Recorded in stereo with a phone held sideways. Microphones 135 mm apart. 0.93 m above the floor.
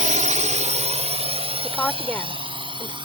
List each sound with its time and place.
0.0 s a drone: 65° right (ahead or behind); by 3.0 s 35° right (ahead or behind)
1.6 s a woman speaking: 15° left (ahead or behind)